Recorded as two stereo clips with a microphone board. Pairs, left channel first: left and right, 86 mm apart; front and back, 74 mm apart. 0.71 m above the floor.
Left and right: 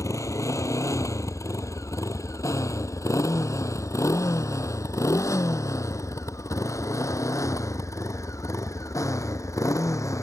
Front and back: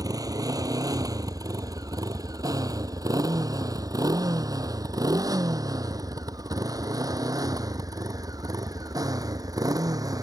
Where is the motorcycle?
145° left.